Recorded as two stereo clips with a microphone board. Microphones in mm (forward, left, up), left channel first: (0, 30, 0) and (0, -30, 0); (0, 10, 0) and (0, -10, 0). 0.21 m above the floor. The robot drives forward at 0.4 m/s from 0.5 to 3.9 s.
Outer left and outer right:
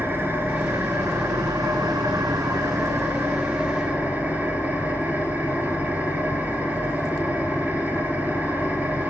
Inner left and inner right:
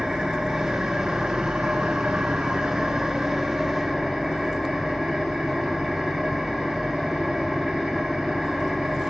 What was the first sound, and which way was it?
An engine running, 40° right (ahead or behind).